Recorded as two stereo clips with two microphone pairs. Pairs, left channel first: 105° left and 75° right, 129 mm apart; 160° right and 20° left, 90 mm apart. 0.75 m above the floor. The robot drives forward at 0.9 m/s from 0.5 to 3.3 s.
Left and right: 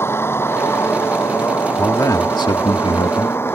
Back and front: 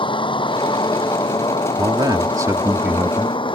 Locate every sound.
0.0 s a vehicle: 175° left
1.8 s a man speaking: 40° left; by 3.6 s 100° left